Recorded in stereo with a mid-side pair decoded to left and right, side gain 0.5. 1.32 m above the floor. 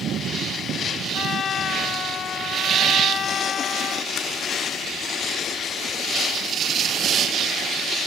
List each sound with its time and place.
1.1 s a trumpet: 50° left